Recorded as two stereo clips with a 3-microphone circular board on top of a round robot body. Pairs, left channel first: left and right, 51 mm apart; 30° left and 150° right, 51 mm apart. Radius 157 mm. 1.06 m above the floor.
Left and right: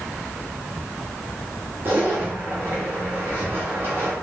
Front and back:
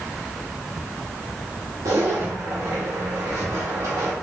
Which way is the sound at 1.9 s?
140° right.